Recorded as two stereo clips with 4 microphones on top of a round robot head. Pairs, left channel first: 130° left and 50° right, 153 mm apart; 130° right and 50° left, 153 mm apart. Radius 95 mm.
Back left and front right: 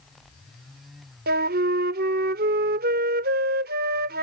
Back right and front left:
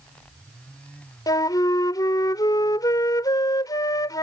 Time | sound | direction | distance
1.3 | a flute | 60° right | ?